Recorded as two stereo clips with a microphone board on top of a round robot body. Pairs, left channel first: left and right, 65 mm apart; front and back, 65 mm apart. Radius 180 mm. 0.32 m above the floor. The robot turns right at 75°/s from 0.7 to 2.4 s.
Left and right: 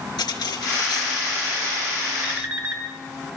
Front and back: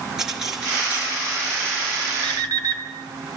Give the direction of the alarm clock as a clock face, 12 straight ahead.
6 o'clock.